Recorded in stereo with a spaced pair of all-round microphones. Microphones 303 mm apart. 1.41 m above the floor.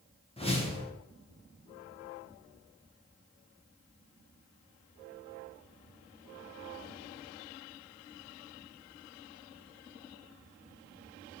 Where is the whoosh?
20° left (ahead or behind), 0.6 m.